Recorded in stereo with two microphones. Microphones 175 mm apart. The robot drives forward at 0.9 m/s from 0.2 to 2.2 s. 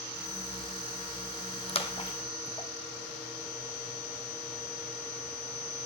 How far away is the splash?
About 1.2 m.